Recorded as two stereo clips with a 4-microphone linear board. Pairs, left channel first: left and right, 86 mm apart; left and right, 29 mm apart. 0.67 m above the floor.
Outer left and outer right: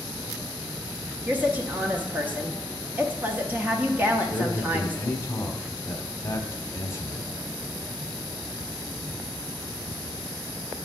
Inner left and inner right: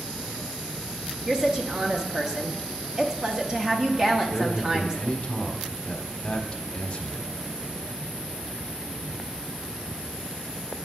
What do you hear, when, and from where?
1.3 s a woman speaking: 20° right (ahead or behind), 0.8 m
4.2 s a man speaking: 35° left (ahead or behind), 1.2 m